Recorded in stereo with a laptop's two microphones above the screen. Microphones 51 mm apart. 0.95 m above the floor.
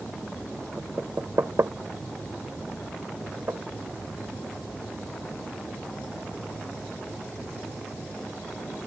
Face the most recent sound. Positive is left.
turn(degrees=-65)  # may be behind; listen again after turning